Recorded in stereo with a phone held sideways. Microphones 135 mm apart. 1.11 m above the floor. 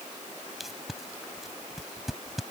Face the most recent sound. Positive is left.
turn(degrees=0)  # may be behind; listen again after turning